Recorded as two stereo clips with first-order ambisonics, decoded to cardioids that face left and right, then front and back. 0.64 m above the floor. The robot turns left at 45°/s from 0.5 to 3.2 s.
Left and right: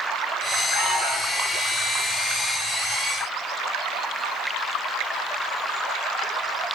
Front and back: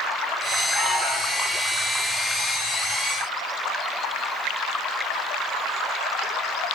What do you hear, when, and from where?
0.7 s an alarm: 125° right, 9.5 m; by 1.4 s 155° right, 9.5 m